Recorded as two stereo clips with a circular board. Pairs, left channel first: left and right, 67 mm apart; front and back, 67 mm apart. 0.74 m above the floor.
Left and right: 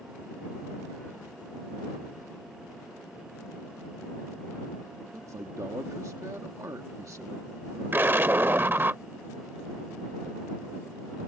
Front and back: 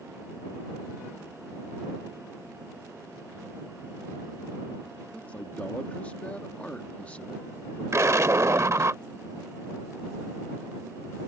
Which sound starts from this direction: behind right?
An explosion, at 7.9 s.